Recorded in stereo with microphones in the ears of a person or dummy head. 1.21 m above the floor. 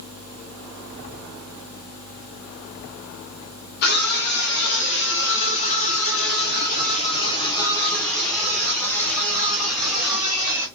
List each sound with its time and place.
3.8 s a scream: 50° left (ahead or behind), 1.7 m; by 10.7 s 20° right (ahead or behind), 2 m